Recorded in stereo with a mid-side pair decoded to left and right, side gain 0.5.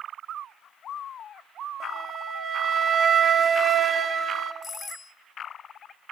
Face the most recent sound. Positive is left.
turn(degrees=40)